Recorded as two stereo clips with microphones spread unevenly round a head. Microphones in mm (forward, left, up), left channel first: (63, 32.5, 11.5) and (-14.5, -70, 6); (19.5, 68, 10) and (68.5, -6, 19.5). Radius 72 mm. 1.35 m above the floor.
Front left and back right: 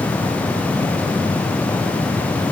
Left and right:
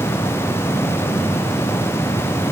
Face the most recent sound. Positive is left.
No sound to turn to.